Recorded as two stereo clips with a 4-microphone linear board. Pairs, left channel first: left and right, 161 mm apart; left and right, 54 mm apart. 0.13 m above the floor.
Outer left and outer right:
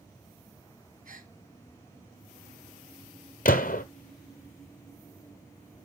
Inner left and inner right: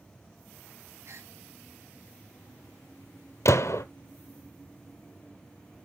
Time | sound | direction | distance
1.1 | a gasp | 60° right (ahead or behind) | 0.8 m
3.5 | a gunshot | 65° left (ahead or behind) | 0.5 m